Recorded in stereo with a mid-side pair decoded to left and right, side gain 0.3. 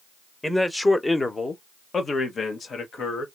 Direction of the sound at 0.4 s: 10° left.